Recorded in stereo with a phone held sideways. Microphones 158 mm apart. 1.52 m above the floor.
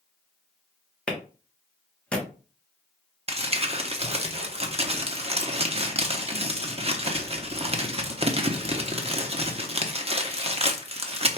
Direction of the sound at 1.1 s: 5° left (ahead or behind).